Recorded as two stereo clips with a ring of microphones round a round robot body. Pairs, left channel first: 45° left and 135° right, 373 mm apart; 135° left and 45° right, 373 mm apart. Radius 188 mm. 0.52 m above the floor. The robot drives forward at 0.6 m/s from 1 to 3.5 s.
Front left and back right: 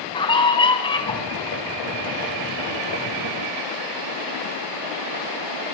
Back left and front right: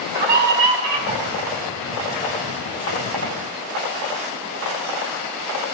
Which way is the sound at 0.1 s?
35° right.